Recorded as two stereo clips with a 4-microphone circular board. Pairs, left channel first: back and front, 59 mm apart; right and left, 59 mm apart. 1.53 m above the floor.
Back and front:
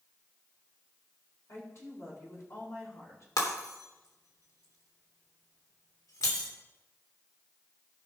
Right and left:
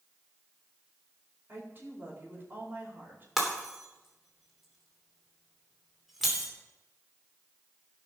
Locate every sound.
1.5 s a woman speaking: 145° left, 5 m
3.4 s breaking glass: 175° left, 3 m